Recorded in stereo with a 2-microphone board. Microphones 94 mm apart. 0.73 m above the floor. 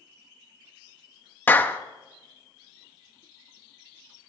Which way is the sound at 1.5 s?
20° left (ahead or behind).